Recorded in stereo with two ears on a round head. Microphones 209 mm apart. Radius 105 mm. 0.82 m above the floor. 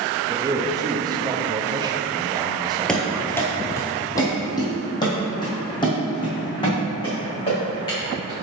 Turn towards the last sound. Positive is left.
turn(degrees=25)  # may be behind; listen again after turning